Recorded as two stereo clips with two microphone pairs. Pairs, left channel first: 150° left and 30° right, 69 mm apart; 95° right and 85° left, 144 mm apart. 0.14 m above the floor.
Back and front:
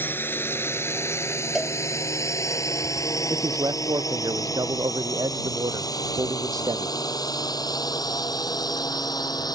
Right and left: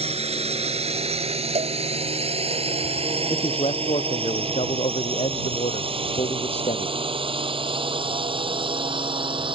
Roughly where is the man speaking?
Ahead right.